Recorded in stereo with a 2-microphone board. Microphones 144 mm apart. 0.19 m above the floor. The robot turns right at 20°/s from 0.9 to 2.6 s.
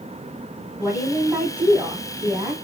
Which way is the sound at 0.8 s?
10° right (ahead or behind).